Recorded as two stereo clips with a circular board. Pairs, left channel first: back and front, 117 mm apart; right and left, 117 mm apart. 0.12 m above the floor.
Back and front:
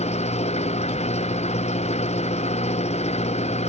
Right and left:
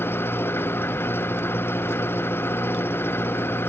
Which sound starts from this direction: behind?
An engine running, at 0.0 s.